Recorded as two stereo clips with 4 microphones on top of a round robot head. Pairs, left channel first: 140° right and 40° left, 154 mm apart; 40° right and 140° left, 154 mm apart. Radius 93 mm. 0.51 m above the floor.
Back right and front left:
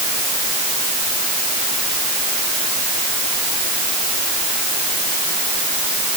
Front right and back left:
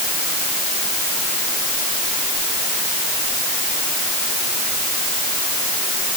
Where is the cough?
I don't hear a cough.